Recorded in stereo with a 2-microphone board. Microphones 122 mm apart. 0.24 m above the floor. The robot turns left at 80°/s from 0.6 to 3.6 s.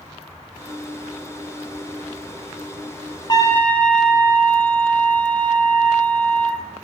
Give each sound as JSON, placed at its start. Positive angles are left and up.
{"t": 3.3, "sound": "a trumpet", "side_deg": 35, "distance_m": 1.6}